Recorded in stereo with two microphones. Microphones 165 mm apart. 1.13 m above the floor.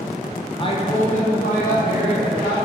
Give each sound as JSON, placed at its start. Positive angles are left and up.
{"t": 0.6, "sound": "a woman speaking", "side_deg": 30, "distance_m": 0.6}